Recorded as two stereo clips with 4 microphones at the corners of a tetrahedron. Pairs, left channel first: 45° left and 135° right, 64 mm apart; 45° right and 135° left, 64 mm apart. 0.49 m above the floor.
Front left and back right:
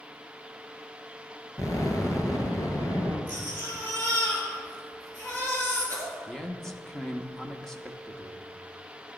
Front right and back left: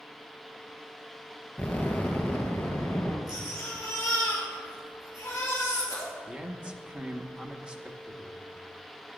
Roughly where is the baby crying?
Ahead.